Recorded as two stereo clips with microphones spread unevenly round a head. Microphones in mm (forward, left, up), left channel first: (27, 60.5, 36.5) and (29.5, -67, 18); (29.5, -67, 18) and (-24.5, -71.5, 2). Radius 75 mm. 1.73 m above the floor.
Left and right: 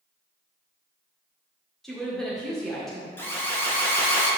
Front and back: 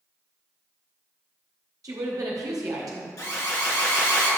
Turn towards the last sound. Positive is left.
turn(degrees=20)